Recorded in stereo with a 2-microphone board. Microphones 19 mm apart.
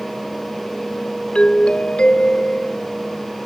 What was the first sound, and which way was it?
A doorbell, 80° left.